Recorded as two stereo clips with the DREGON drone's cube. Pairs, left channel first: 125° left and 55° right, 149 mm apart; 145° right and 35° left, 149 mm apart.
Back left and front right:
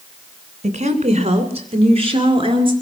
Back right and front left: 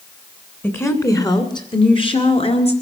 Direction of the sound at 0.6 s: 75° right.